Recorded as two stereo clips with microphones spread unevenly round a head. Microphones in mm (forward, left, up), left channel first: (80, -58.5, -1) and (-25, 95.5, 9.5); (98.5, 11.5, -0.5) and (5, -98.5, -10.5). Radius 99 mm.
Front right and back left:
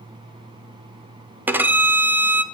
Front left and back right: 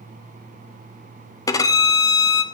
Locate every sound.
1.5 s a violin: 65° left, 0.5 m